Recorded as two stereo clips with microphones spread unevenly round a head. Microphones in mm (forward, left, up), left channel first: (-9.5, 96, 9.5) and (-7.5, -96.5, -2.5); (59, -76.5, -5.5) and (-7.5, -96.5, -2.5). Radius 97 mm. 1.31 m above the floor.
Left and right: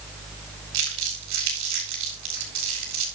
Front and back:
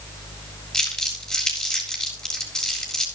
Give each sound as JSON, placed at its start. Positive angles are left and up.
{"t": 0.7, "sound": "crumpling", "azimuth_deg": -65, "distance_m": 6.5}